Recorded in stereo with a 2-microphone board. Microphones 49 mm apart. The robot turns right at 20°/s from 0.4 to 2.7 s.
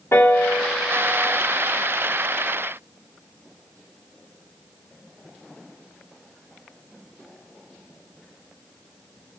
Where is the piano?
60° left (ahead or behind), 2.5 m; by 1.4 s 40° left (ahead or behind), 2.5 m.